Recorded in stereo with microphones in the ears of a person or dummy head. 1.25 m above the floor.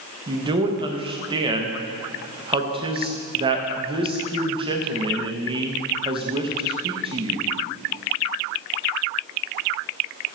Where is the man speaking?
30° right (ahead or behind), 0.8 m.